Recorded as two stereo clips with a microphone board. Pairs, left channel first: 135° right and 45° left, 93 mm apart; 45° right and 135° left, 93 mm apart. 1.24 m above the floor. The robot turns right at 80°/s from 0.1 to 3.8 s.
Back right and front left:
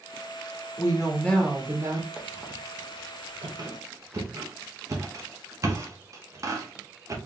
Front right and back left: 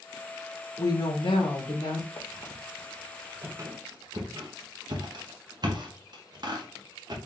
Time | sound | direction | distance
0.8 | a woman speaking | 100° right | 1.4 m
2.2 | a squeak | 35° right | 0.9 m